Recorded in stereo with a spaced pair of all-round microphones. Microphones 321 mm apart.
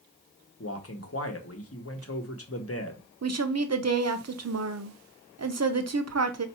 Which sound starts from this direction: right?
A woman speaking, at 3.2 s.